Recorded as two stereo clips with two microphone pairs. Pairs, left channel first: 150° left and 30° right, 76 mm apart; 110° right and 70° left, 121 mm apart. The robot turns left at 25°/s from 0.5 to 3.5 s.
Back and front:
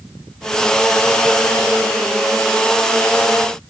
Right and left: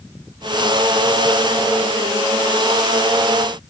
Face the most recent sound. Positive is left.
No sound to turn to.